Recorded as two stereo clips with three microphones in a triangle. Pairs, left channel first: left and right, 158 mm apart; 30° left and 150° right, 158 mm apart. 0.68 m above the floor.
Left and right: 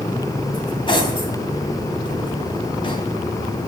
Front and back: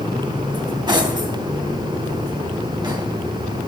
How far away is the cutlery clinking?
About 3 m.